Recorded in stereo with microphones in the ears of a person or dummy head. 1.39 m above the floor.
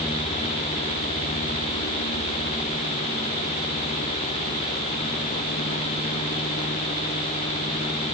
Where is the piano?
No piano in this recording.